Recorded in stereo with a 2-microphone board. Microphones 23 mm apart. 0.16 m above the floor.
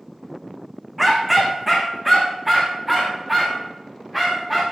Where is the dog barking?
10° right (ahead or behind), 3 m; by 4.6 s 5° right (ahead or behind), 5.5 m.